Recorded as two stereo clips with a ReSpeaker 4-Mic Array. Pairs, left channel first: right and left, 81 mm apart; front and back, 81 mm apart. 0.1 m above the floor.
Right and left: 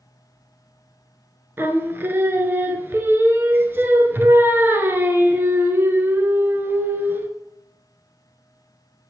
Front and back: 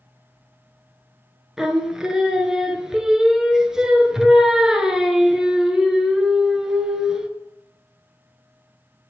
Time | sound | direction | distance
1.6 | singing | 105° left | 0.6 m